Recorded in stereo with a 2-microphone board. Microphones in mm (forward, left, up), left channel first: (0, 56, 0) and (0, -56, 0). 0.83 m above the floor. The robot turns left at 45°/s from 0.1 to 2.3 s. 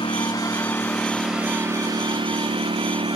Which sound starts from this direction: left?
A lawn mower, at 0.0 s.